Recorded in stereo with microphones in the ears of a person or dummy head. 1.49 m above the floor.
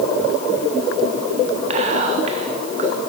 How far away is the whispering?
About 1.0 m.